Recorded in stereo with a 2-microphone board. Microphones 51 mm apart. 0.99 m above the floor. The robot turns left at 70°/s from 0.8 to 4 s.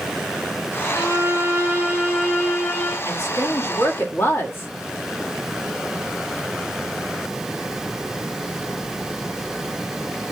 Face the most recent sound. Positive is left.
turn(degrees=55)